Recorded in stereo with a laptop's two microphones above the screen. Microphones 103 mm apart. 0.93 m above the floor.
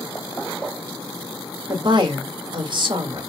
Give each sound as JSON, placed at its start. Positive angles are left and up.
{"t": 1.7, "sound": "a woman speaking", "side_deg": -50, "distance_m": 1.5}